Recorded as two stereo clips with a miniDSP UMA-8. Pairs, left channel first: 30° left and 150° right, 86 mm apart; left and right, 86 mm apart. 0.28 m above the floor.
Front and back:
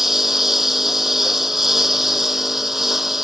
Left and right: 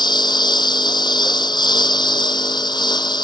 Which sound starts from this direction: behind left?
A lawn mower, at 0.0 s.